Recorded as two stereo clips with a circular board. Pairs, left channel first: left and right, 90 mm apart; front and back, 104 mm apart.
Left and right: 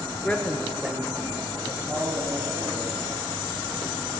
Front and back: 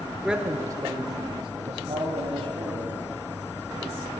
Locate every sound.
0.2 s a man speaking: 95° left, 0.9 m; by 3.0 s 160° right, 3 m